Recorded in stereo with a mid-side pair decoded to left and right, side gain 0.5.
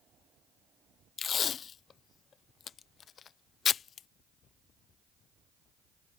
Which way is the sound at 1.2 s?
45° left.